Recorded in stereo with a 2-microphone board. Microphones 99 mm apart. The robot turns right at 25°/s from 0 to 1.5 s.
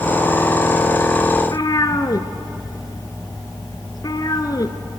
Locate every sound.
1.4 s a cat meowing: 45° left (ahead or behind), 1.4 m